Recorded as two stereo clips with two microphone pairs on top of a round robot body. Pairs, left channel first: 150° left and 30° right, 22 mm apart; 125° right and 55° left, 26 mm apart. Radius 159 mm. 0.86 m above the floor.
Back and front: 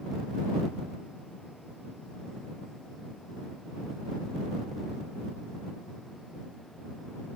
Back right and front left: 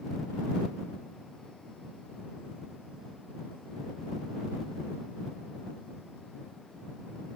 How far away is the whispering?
No whispering in this recording.